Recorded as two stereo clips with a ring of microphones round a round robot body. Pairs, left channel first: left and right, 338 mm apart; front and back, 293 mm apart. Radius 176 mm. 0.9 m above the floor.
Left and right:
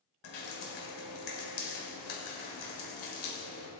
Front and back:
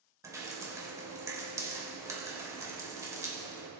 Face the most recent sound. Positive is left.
turn(degrees=100)